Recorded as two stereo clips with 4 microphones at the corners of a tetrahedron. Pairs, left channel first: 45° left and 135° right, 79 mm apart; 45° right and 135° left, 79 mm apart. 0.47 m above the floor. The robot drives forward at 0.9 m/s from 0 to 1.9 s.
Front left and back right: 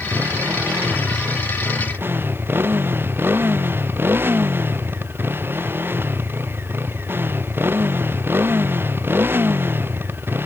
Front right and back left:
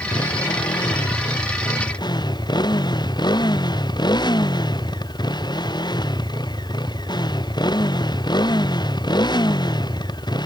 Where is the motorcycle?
70° right.